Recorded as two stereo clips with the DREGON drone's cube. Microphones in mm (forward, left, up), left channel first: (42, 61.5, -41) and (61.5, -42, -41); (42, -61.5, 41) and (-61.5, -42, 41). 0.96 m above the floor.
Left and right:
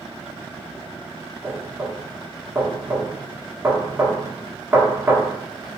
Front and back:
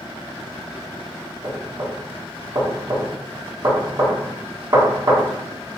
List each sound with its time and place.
1.4 s knocking: 145° right, 1.6 m